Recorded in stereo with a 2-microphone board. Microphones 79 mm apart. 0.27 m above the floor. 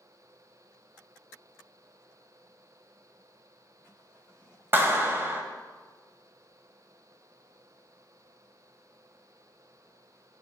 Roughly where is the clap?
Right.